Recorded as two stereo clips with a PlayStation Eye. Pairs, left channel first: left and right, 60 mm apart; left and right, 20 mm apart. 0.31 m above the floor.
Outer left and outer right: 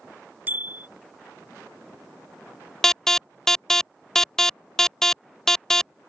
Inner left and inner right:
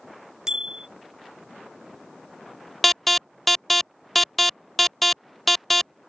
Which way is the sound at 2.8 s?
5° left (ahead or behind).